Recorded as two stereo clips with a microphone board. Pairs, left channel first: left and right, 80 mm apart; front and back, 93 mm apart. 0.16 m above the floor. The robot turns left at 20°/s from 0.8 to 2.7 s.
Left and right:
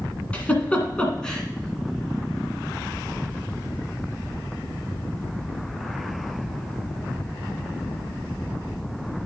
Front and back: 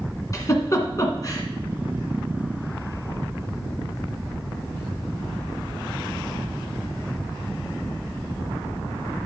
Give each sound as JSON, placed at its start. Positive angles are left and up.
{"t": 0.3, "sound": "a giggle", "azimuth_deg": 25, "distance_m": 1.6}